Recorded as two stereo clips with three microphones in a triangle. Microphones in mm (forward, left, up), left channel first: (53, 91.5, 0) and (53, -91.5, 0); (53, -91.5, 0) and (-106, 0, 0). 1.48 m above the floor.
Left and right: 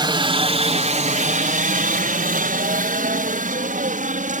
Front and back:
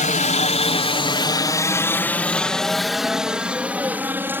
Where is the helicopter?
40° right; by 4.4 s 130° right.